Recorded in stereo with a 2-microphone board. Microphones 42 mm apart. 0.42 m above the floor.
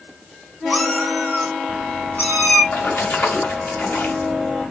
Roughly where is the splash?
Left.